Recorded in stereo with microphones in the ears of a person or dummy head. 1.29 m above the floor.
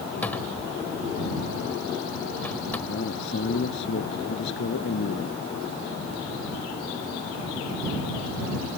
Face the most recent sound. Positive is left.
turn(degrees=70)  # may be behind; listen again after turning